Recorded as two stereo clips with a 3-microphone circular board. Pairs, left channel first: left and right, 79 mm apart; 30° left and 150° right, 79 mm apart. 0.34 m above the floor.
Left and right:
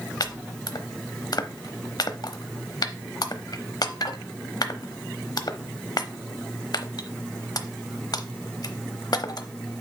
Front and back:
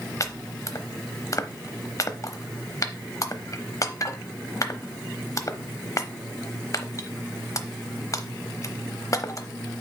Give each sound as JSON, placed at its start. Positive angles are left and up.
{"t": 0.2, "sound": "chopping", "azimuth_deg": 70, "distance_m": 0.8}